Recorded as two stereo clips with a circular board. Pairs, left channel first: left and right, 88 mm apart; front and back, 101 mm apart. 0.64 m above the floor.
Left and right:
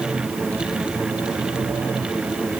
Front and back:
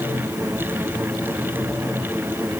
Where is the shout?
No shout in this recording.